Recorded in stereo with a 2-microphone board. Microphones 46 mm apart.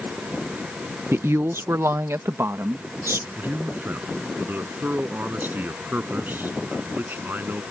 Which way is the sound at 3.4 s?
45° right (ahead or behind).